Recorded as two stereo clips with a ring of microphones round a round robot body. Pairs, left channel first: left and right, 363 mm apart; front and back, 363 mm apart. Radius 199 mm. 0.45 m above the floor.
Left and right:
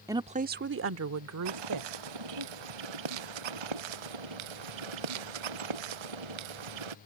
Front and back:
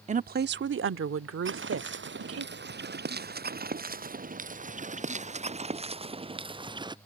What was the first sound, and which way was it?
A woman speaking, 155° right.